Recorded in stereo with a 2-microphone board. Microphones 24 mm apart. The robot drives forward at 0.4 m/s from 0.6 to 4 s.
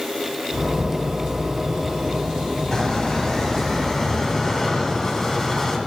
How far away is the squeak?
About 1.4 m.